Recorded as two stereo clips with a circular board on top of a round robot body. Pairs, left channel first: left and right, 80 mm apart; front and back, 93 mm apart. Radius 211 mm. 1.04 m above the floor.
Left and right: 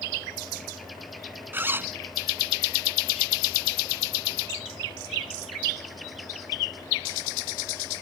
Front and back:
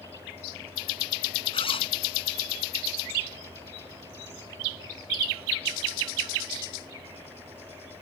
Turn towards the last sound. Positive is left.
turn(degrees=-25)